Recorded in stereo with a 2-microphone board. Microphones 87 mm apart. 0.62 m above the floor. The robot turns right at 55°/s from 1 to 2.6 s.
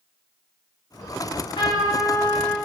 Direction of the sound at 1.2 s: 55° left.